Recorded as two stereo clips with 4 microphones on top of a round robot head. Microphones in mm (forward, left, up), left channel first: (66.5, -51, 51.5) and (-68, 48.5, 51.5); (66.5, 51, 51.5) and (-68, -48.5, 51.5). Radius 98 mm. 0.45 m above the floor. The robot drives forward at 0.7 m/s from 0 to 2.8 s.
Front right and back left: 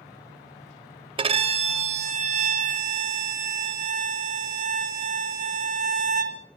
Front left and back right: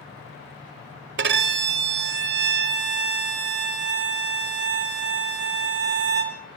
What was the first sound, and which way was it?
A violin, 155° right.